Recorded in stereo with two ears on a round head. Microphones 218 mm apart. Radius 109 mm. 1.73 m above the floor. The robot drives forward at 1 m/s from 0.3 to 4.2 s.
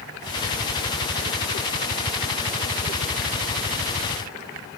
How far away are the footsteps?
I don't hear footsteps.